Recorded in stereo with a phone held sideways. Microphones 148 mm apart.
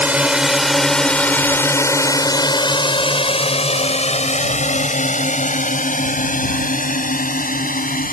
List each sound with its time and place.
0.0 s a drone: 10° right (ahead or behind); by 8.2 s 70° left (ahead or behind)